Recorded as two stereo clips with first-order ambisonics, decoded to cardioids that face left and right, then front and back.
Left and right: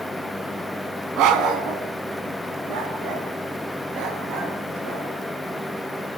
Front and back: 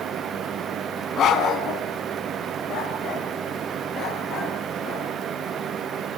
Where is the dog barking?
55° right, 2.5 m; by 5.1 s 65° right, 6.5 m.